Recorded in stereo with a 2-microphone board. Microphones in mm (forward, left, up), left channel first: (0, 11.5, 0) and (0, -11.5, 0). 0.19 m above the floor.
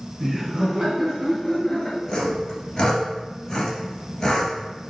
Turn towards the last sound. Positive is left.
turn(degrees=30)  # may be behind; listen again after turning